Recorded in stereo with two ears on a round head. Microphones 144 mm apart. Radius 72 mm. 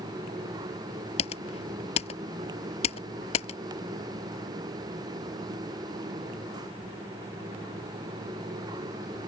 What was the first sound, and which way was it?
Typing on a keyboard, 40° left (ahead or behind).